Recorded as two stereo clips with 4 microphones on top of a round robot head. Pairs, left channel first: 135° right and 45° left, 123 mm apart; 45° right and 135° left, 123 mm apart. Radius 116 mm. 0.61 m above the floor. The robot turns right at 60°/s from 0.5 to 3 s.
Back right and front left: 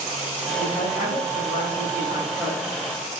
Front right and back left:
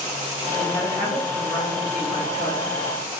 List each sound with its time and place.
0.6 s a woman speaking: 175° right, 4 m; by 2.6 s 50° right, 4 m